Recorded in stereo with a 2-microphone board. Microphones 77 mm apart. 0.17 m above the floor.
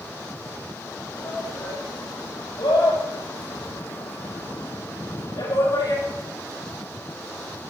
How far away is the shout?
About 6.5 m.